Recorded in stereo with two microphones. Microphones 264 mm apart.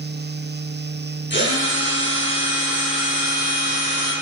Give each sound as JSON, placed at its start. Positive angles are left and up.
{"t": 1.3, "sound": "a drill", "side_deg": 45, "distance_m": 6.0}